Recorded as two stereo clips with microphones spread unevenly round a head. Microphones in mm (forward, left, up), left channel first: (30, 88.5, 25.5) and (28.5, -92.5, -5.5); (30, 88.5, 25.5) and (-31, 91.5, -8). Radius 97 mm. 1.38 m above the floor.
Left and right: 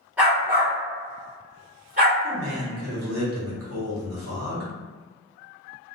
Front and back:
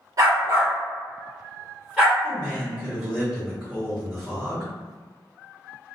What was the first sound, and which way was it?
A dog barking, 165° left.